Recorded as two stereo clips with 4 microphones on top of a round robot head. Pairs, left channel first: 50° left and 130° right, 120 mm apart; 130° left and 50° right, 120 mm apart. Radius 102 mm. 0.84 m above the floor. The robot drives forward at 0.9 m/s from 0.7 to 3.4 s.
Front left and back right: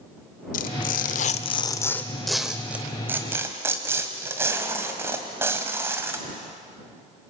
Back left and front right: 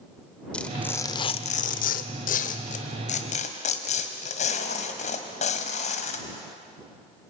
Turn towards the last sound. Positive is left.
turn(degrees=160)